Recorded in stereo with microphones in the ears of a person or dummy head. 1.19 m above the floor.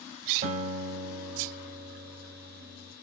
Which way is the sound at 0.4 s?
50° right (ahead or behind).